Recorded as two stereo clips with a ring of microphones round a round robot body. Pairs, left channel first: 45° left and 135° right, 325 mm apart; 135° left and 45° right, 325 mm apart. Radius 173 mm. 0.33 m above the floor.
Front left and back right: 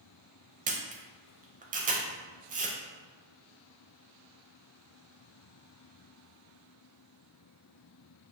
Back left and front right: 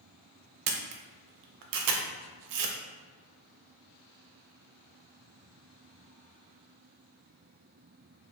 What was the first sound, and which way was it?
A camera shutter, 70° right.